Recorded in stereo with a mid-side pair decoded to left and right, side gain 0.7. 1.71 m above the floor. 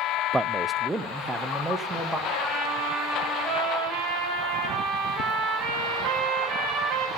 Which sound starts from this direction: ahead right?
A trumpet, at 2.3 s.